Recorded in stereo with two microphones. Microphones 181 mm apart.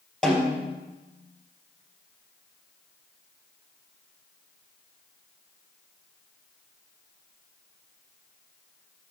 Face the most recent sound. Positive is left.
turn(degrees=0)  # may be behind; listen again after turning